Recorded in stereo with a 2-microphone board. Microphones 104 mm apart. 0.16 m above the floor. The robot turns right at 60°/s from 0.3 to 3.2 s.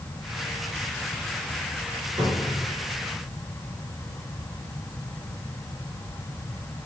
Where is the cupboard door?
50° right (ahead or behind), 2.0 m; by 2.7 s 35° right (ahead or behind), 2.0 m.